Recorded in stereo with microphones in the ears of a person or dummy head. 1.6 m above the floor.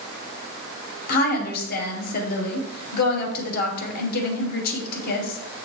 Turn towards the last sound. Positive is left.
turn(degrees=45)  # may be behind; listen again after turning